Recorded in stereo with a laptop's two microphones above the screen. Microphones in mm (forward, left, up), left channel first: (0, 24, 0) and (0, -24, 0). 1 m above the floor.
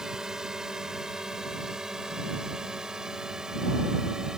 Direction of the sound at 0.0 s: 15° right (ahead or behind).